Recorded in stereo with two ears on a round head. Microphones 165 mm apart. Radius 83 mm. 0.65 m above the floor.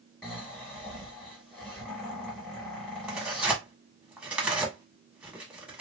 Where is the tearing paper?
5° right (ahead or behind), 1.4 m.